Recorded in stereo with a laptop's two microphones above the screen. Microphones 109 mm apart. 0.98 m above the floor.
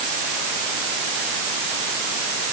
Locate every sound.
Only background noise.